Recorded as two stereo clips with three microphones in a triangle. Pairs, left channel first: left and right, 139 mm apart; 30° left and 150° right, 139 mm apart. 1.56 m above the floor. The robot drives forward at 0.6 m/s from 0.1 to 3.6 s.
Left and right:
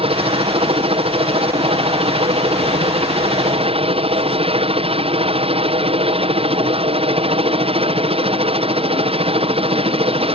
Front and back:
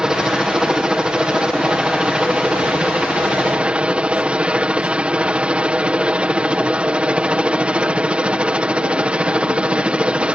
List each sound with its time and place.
0.0 s a helicopter: 65° right; by 10.4 s 70° right